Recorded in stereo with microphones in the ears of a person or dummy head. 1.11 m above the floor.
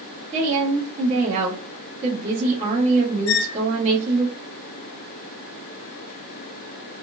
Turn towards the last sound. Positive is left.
turn(degrees=85)